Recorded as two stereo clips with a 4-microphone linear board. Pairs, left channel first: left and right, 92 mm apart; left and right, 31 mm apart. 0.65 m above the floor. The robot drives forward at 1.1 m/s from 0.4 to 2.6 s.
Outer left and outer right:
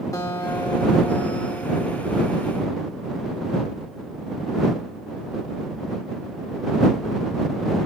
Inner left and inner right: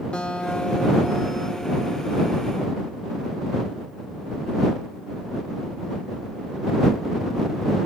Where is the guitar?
35° left (ahead or behind), 1.3 m; by 2.4 s 30° left (ahead or behind), 1.5 m.